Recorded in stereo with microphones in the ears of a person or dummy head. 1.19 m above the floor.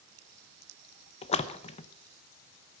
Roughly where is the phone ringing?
I don't hear a phone ringing.